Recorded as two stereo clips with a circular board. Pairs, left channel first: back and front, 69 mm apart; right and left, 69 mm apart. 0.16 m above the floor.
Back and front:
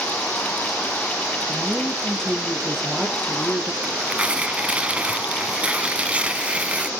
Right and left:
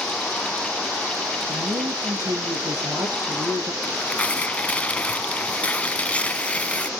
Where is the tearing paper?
45° right, 1.1 m.